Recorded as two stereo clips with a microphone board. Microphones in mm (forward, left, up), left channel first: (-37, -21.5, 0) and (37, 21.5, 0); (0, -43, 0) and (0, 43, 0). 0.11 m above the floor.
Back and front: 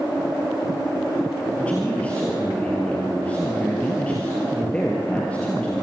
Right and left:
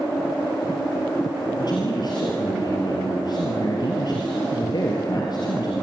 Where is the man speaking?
80° right, 2.5 m.